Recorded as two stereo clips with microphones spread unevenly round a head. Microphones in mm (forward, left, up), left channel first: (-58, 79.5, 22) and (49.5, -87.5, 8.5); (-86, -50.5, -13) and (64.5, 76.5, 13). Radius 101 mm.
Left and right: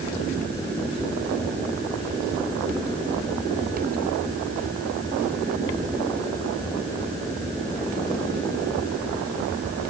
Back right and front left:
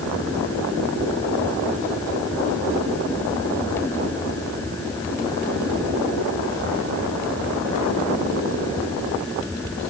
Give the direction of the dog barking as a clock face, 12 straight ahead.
I don't hear a dog barking.